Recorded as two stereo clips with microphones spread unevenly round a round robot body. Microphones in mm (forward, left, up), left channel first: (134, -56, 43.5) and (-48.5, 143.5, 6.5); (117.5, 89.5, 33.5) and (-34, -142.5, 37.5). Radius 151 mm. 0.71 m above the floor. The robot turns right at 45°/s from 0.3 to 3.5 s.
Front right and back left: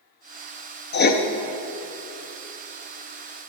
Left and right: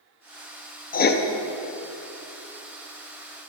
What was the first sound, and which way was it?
Writing, straight ahead.